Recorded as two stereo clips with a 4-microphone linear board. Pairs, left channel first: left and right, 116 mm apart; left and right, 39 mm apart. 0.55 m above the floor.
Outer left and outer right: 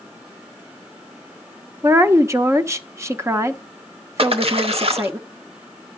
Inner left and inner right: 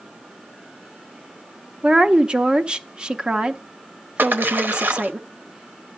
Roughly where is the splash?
Right.